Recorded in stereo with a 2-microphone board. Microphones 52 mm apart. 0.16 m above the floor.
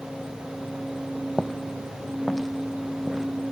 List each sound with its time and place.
1.4 s footsteps: 5° left (ahead or behind); by 3.3 s 5° right (ahead or behind)